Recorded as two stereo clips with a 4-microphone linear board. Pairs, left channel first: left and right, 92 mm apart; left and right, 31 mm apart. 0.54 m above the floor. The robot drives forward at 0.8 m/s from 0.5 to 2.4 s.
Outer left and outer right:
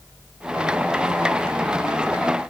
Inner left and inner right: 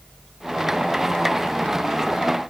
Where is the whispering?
No whispering in this recording.